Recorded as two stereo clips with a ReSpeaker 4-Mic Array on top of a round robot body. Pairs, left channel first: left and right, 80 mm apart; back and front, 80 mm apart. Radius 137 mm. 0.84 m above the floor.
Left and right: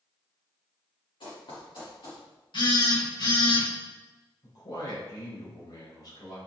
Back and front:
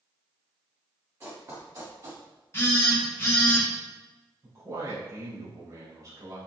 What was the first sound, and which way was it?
Running footsteps, 60° left.